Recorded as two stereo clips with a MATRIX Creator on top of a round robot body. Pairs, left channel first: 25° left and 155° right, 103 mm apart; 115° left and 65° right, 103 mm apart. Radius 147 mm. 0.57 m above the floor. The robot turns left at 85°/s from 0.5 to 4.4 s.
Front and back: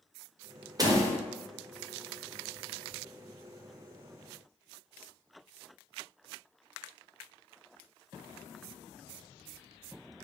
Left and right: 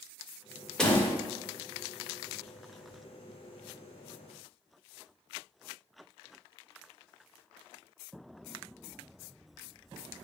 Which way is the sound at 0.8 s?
170° right.